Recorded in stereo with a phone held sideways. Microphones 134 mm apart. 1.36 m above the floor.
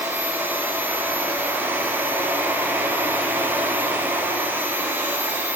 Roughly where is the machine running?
Centre.